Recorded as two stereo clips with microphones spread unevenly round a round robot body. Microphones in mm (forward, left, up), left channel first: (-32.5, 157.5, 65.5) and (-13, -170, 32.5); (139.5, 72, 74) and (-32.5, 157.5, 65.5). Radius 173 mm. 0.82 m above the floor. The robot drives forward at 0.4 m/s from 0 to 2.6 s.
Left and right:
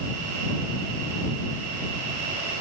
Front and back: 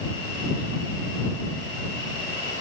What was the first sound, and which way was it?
Only background noise.